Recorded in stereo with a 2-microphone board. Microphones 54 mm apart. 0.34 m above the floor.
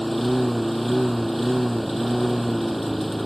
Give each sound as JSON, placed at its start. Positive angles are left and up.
{"t": 0.0, "sound": "a lawn mower", "side_deg": 0}